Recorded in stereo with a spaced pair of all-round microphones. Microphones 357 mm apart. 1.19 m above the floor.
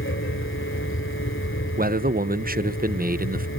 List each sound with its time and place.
0.0 s a fan: 35° left (ahead or behind), 2.5 m
1.8 s a man speaking: 25° right (ahead or behind), 0.9 m